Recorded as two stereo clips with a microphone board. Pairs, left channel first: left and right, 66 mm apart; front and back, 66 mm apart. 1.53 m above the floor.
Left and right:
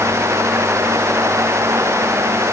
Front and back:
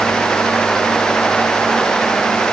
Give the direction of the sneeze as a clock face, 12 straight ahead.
I don't hear a sneeze.